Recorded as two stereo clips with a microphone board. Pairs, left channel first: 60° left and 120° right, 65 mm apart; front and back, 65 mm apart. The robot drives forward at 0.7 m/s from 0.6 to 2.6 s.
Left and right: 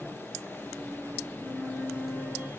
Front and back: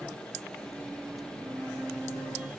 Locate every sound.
1.4 s a flute: 165° left, 2 m; by 2.5 s 170° left, 3 m